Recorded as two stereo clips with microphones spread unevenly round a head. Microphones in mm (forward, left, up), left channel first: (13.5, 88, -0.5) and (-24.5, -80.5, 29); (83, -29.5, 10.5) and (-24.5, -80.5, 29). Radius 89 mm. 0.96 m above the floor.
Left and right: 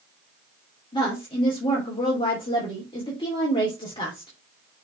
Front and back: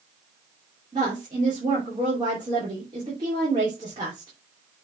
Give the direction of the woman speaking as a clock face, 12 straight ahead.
7 o'clock.